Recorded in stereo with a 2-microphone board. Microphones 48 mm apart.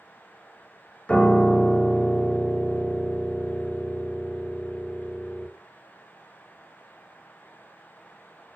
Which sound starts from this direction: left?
A piano, at 1.1 s.